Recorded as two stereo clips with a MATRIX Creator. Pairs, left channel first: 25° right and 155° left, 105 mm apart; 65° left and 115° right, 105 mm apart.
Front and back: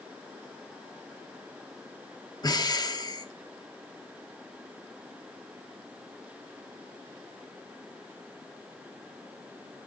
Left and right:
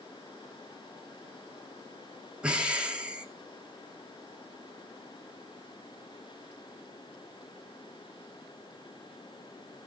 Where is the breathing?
40° right, 1.1 m.